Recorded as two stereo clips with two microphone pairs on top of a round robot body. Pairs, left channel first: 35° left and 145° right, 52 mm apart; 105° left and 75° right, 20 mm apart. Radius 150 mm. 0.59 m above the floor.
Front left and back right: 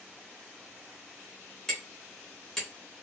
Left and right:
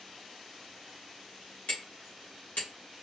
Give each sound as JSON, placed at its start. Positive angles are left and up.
{"t": 1.7, "sound": "hammering", "azimuth_deg": 120, "distance_m": 1.1}